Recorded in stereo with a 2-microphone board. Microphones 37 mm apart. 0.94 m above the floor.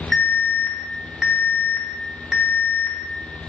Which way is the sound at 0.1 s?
10° right (ahead or behind).